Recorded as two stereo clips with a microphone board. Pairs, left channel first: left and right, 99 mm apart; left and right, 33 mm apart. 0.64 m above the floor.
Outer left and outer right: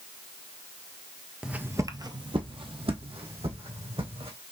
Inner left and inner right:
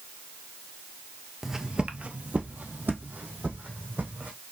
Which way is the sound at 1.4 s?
10° right (ahead or behind).